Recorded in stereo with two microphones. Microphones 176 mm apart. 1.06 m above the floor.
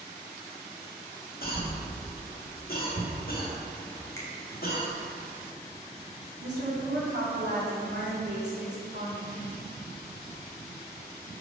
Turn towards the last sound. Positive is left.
turn(degrees=-75)  # may be behind; listen again after turning